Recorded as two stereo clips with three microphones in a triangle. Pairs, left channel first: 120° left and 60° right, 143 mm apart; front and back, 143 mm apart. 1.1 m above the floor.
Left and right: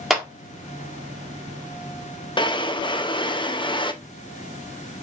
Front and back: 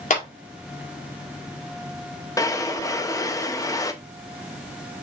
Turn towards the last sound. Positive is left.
turn(degrees=65)